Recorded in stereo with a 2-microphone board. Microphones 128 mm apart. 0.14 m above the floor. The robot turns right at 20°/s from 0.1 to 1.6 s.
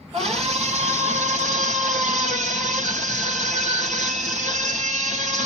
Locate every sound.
0.1 s a scream: 50° right (ahead or behind), 3 m; by 5.5 s 70° right (ahead or behind), 3 m